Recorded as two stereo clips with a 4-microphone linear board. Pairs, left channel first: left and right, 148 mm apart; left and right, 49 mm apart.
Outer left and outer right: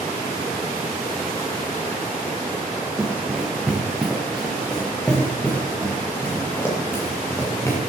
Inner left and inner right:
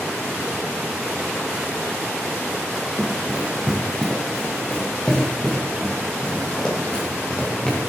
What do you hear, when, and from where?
3.0 s running footsteps: 10° right (ahead or behind), 3.5 m; by 7.8 s 20° left (ahead or behind), 5.5 m